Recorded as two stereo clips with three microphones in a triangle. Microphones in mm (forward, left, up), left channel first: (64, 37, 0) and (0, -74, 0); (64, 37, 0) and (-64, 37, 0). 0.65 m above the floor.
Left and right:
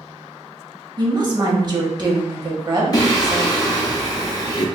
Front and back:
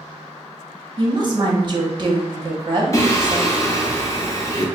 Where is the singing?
40° left, 0.7 m.